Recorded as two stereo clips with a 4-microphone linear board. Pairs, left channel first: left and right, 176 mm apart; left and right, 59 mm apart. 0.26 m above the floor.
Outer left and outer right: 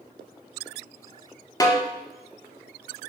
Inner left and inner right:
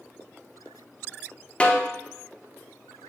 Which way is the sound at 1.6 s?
20° left (ahead or behind).